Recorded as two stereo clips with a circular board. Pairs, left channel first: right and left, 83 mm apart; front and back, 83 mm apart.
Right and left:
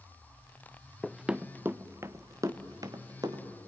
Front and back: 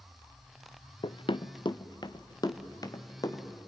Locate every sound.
1.0 s running footsteps: 5° right, 0.6 m; by 3.5 s 45° left, 2.5 m